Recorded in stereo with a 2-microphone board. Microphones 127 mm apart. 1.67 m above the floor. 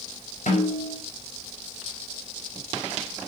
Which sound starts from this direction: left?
A snare drum, at 0.5 s.